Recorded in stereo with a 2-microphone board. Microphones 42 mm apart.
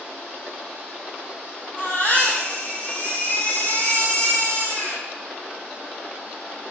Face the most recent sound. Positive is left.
turn(degrees=65)  # may be behind; listen again after turning